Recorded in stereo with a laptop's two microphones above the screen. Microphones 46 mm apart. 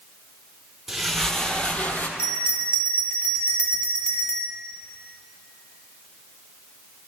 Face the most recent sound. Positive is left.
turn(degrees=70)  # may be behind; listen again after turning